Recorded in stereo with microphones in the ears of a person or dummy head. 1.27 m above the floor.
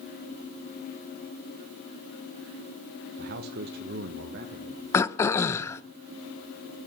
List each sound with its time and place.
3.2 s a man speaking: 45° right (ahead or behind), 0.9 m; by 4.8 s 55° right (ahead or behind), 2 m
4.9 s throat clearing: 25° left (ahead or behind), 0.7 m